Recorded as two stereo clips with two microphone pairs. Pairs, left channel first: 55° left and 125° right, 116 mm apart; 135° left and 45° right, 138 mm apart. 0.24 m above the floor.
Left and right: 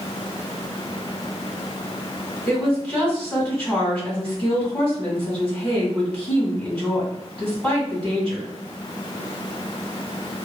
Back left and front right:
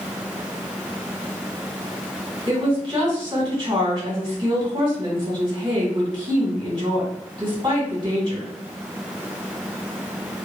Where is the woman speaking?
15° right, 2.0 m.